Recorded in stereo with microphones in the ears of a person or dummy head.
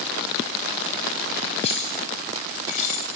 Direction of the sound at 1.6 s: 35° left (ahead or behind).